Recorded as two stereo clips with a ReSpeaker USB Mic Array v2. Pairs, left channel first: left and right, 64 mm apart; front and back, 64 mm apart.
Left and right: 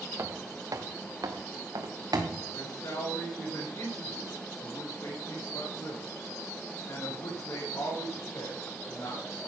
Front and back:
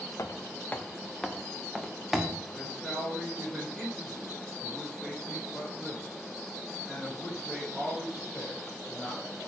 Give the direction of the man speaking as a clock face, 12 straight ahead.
9 o'clock.